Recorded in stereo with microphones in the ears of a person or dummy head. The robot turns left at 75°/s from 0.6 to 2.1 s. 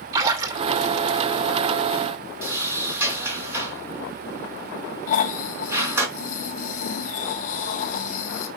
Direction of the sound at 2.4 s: 10° right (ahead or behind).